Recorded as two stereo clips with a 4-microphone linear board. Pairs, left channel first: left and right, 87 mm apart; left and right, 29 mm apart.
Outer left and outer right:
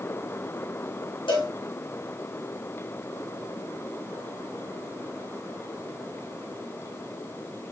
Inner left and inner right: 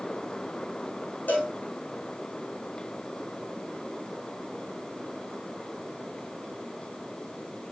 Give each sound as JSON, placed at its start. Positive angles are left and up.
{"t": 1.3, "sound": "a cowbell", "side_deg": 80, "distance_m": 4.5}